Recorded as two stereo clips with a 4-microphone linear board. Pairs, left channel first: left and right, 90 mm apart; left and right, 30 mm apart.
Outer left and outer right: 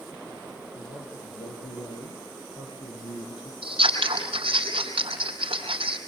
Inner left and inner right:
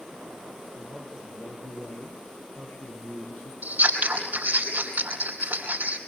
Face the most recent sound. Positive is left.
turn(degrees=-80)